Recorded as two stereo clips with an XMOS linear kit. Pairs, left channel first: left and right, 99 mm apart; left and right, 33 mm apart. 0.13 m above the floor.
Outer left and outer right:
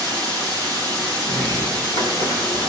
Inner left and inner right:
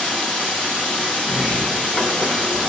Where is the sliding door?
40° left (ahead or behind), 4 m.